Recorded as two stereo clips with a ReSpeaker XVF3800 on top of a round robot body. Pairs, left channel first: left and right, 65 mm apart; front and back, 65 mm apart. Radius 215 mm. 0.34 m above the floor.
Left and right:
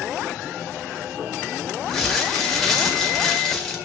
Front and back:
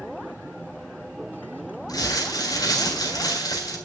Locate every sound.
1.9 s crumpling: 5° left, 4 m